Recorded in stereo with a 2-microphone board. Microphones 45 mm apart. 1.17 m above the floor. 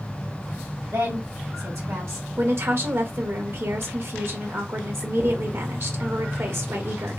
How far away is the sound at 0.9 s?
About 2 m.